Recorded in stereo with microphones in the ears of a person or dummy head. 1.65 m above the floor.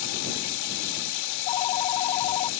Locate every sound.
0.0 s running water: 70° left (ahead or behind)
1.3 s a phone ringing: 25° left (ahead or behind)